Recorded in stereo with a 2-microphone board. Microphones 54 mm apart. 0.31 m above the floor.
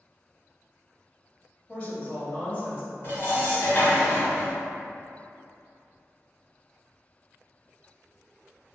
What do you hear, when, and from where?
1.7 s a woman speaking: 35° left (ahead or behind), 1.1 m
3.0 s dishes clattering: 45° left (ahead or behind), 1.6 m